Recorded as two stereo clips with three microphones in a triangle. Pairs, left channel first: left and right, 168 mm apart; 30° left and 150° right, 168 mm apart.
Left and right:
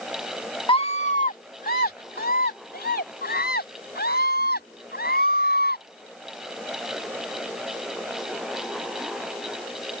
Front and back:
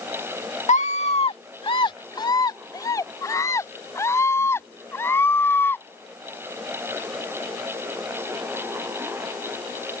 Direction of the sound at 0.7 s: 45° left.